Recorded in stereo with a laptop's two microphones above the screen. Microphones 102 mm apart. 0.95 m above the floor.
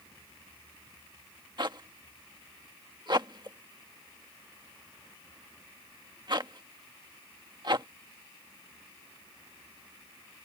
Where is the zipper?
45° right (ahead or behind).